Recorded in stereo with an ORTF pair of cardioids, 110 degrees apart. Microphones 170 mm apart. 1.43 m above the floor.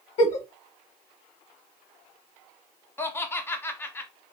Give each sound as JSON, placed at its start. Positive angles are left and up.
{"t": 0.2, "sound": "a giggle", "azimuth_deg": 40, "distance_m": 0.8}
{"t": 3.0, "sound": "laughter", "azimuth_deg": 15, "distance_m": 0.6}